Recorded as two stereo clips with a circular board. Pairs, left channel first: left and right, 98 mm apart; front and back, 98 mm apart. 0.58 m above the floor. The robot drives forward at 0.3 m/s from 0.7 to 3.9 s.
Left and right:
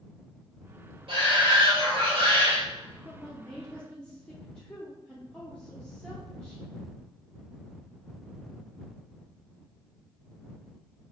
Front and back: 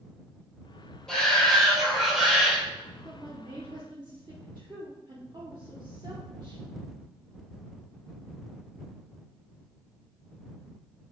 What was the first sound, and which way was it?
A shout, 80° right.